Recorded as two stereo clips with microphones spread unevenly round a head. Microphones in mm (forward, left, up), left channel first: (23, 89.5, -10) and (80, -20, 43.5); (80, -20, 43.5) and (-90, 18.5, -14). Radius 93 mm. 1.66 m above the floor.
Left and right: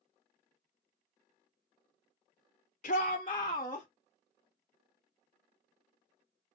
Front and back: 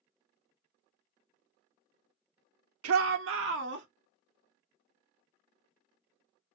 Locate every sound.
2.8 s a shout: 175° left, 0.8 m; by 3.9 s 165° right, 1.4 m